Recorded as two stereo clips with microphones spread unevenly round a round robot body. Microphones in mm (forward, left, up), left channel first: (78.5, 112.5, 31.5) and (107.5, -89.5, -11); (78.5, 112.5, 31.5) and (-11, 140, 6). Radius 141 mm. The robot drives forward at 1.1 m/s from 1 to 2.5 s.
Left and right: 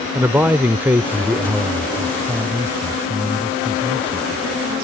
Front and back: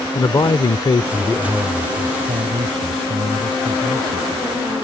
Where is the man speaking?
35° right; by 4.5 s 170° right.